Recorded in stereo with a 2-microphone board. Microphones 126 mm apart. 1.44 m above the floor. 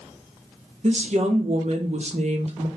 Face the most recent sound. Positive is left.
turn(degrees=-60)  # may be behind; listen again after turning